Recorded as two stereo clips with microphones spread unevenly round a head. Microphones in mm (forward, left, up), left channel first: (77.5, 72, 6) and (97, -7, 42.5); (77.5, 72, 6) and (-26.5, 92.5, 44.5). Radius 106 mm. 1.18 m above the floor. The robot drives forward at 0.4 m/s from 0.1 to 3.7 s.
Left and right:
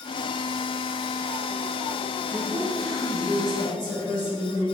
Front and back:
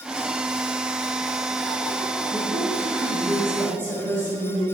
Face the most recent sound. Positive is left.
turn(degrees=-150)